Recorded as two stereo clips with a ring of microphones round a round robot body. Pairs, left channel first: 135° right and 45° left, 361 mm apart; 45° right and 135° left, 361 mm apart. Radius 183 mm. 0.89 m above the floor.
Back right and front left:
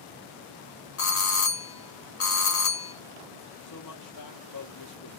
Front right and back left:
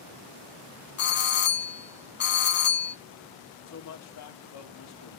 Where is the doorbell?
95° right, 1.9 m.